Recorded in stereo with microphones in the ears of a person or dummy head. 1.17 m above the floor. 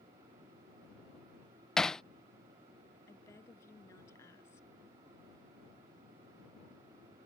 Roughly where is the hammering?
Centre.